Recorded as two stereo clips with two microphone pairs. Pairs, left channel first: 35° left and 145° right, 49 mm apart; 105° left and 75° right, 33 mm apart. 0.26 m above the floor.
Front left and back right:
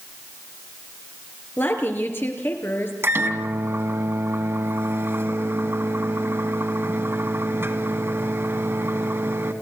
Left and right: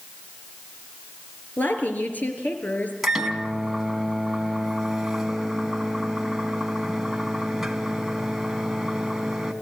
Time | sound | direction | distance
1.6 | a woman speaking | 75° left | 4 m
3.0 | a microwave | 155° right | 2 m